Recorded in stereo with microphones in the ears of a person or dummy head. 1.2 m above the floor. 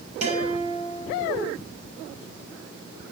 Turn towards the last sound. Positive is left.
turn(degrees=-40)  # may be behind; listen again after turning